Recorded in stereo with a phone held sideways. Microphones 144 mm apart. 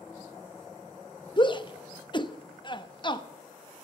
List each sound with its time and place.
1.4 s a shout: 35° left (ahead or behind), 1.0 m